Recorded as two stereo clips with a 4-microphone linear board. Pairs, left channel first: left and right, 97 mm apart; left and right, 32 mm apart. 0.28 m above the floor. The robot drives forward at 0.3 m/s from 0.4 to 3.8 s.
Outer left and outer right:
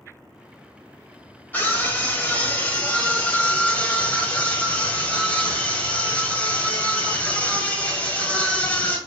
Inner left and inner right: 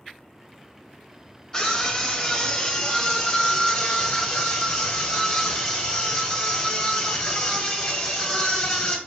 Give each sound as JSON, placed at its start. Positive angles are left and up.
{"t": 1.5, "sound": "a scream", "side_deg": 20, "distance_m": 1.1}